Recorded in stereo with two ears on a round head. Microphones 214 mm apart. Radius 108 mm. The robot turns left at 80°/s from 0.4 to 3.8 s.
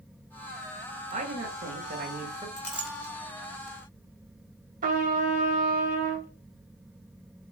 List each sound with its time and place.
1.1 s a man speaking: 40° right, 1.1 m; by 2.5 s 145° right, 1.1 m
2.6 s a clink: 10° left (ahead or behind), 1.6 m; by 3.1 s 30° right (ahead or behind), 1.6 m
4.8 s a trumpet: 35° right (ahead or behind), 0.9 m